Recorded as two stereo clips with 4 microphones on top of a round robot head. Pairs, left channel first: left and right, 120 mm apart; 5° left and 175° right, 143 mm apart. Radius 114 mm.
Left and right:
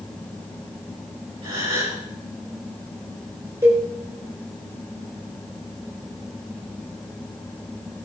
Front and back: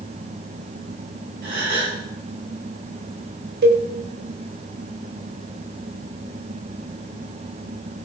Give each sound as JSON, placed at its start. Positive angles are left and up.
{"t": 1.4, "sound": "a gasp", "azimuth_deg": -145, "distance_m": 6.5}
{"t": 3.6, "sound": "a cowbell", "azimuth_deg": -165, "distance_m": 4.5}